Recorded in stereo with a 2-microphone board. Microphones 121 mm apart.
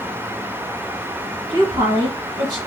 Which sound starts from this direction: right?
A woman speaking, at 1.5 s.